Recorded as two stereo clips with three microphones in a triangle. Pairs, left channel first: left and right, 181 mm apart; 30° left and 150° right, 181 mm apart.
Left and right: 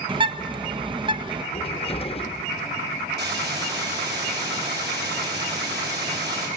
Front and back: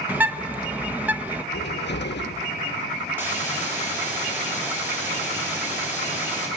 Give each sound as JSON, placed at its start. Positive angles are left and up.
{"t": 0.1, "sound": "a bird", "azimuth_deg": -80, "distance_m": 0.8}
{"t": 1.5, "sound": "a cupboard door", "azimuth_deg": 35, "distance_m": 0.7}
{"t": 3.2, "sound": "a hiss", "azimuth_deg": -70, "distance_m": 6.0}